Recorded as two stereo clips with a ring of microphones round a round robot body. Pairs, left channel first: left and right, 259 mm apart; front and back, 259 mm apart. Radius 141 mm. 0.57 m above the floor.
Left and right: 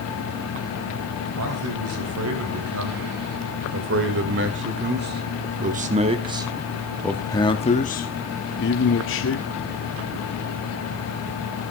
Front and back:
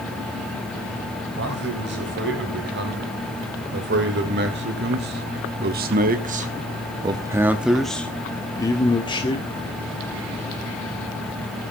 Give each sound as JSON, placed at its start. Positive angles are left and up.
{"t": 1.4, "sound": "a man speaking", "azimuth_deg": -130, "distance_m": 3.5}